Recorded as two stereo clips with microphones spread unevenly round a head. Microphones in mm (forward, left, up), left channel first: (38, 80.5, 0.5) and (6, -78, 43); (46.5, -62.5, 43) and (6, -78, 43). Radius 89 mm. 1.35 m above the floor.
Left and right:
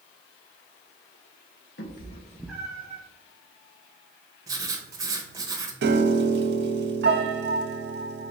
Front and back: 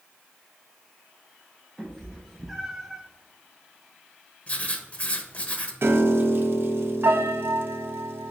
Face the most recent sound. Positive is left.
turn(degrees=-135)